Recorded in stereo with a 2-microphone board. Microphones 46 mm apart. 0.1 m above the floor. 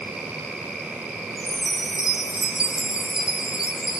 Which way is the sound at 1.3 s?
20° right (ahead or behind).